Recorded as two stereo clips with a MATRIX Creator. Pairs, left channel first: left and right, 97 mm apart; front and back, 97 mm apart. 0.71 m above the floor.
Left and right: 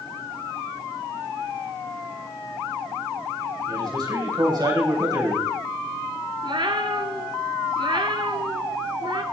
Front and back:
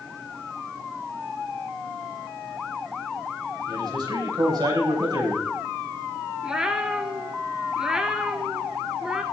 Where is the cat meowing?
100° right, 1.0 m.